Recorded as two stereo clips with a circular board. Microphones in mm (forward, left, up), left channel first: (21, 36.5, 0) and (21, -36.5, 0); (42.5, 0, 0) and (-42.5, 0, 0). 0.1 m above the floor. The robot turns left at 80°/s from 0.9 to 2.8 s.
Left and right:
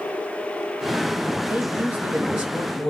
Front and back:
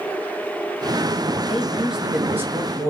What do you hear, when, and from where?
1.4 s a man speaking: 75° right, 1.1 m; by 2.9 s straight behind, 1.1 m